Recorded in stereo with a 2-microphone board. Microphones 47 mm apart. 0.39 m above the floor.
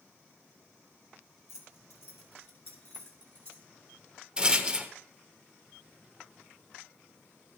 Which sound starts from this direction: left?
Keys jangling, at 1.5 s.